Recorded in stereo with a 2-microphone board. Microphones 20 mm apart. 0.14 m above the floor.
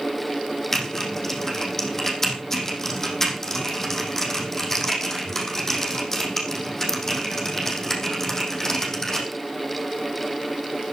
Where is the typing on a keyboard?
25° left (ahead or behind), 5 m.